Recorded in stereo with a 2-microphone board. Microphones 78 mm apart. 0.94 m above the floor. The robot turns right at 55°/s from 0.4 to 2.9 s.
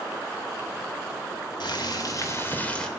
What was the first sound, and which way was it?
Boiling, 100° left.